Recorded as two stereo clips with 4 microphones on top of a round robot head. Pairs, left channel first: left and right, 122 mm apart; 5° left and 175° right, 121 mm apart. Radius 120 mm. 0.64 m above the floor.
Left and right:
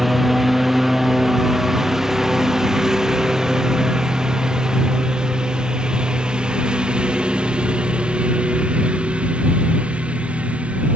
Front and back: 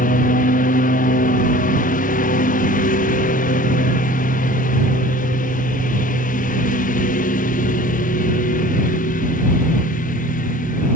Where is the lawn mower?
Straight ahead; by 11.0 s 10° right.